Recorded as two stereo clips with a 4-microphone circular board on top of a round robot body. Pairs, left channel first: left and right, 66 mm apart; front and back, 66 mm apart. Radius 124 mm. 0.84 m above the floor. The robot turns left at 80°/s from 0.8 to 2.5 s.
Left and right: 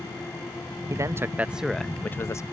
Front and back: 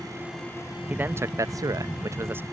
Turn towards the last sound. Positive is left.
turn(degrees=120)